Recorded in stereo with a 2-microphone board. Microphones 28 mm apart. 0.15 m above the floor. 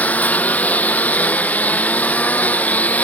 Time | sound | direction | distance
0.0 | a lawn mower | 65° left (ahead or behind) | ?